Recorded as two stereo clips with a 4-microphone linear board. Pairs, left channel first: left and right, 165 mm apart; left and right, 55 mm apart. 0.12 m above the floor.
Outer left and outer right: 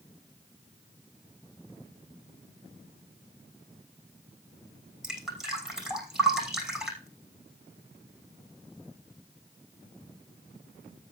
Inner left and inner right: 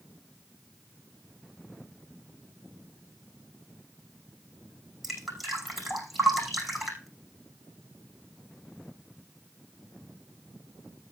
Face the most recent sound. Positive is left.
turn(degrees=-5)  # may be behind; listen again after turning